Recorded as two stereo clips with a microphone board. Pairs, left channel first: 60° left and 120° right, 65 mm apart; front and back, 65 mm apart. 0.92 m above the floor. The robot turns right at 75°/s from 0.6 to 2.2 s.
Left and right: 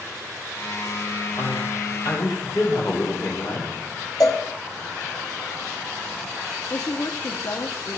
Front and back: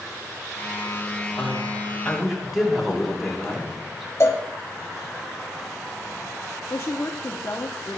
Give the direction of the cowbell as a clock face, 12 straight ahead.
11 o'clock.